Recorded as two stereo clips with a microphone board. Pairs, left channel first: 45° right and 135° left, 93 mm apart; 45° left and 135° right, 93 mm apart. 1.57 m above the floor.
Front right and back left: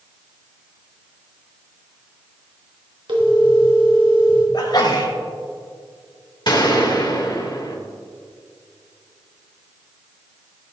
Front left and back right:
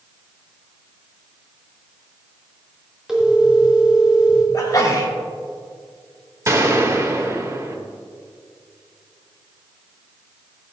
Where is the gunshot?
80° right, 1.9 m.